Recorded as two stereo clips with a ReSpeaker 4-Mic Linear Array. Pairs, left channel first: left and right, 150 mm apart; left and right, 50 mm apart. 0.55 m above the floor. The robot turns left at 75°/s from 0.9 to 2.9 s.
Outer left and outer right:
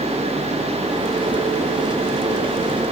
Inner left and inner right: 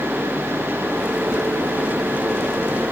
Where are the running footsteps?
No running footsteps in this recording.